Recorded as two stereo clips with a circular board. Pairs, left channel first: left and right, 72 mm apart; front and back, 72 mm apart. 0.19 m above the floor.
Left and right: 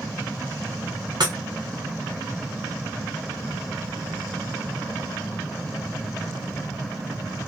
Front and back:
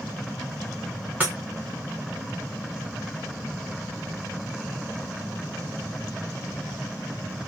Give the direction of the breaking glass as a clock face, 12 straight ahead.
4 o'clock.